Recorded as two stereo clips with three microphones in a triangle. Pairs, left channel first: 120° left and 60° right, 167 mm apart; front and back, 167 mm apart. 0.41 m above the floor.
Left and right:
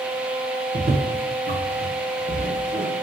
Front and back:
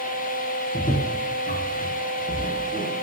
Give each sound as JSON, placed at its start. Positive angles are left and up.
{"t": 0.7, "sound": "footsteps", "azimuth_deg": -35, "distance_m": 3.5}